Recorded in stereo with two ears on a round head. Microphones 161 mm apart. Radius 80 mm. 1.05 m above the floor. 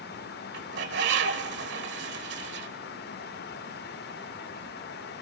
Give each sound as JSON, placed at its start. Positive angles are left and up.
{"t": 0.5, "sound": "a bird", "side_deg": -70, "distance_m": 1.6}